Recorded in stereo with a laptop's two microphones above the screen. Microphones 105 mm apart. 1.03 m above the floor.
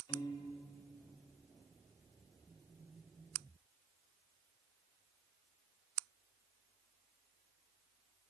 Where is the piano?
40° left (ahead or behind), 1.2 m.